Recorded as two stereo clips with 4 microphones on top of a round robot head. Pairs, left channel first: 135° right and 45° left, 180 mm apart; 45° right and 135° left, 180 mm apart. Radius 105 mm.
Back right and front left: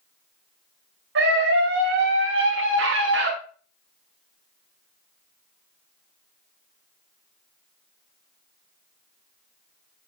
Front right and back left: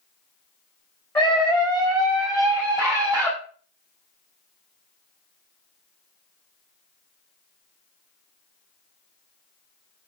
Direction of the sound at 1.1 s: 35° left.